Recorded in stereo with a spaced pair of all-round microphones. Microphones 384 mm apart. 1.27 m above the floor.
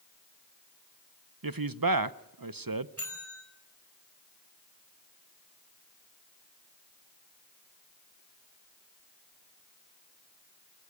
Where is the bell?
40° right (ahead or behind), 5.5 m.